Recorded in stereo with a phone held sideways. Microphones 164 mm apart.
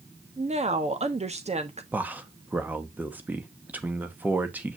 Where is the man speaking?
10° right (ahead or behind), 1.2 m.